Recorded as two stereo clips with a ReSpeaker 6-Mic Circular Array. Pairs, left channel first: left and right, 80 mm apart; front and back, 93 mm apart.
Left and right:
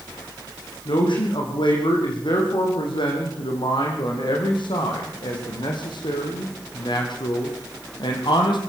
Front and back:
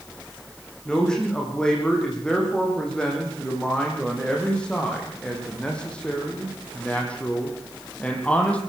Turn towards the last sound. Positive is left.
turn(degrees=75)